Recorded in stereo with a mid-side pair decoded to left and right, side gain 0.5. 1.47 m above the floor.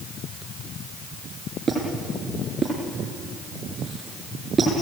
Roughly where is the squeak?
Ahead right.